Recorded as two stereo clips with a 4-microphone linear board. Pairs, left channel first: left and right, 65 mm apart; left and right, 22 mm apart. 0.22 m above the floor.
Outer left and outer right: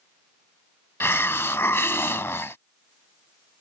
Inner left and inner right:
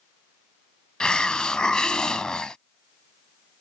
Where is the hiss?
40° left (ahead or behind).